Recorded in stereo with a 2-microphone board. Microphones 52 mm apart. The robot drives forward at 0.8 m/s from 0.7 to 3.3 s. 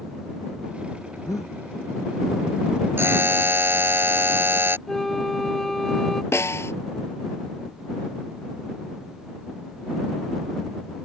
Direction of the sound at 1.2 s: 85° left.